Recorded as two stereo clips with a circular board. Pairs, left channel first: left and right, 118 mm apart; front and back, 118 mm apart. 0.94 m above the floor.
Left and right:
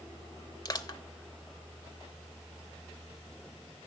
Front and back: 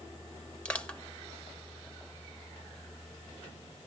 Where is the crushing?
75° left, 0.7 m.